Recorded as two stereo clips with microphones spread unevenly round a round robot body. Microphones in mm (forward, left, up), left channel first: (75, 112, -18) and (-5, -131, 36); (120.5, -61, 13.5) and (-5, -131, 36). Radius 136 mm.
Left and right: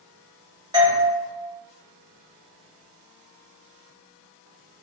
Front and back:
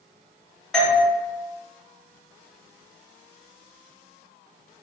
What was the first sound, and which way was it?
A doorbell, 25° right.